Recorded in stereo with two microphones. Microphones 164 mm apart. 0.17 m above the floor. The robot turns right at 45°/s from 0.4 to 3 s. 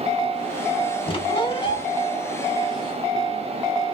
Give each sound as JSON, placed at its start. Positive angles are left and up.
{"t": 1.1, "sound": "a squeak", "azimuth_deg": 80, "distance_m": 0.7}